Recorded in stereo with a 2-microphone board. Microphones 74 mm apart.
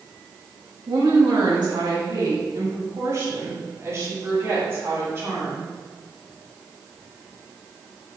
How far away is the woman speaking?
About 1.3 m.